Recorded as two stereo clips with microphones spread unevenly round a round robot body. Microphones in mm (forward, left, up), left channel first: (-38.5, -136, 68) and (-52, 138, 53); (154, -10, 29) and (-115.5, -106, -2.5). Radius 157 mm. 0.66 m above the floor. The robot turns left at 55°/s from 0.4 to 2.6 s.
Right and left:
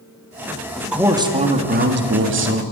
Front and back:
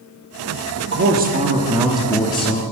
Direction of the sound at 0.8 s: 175° right.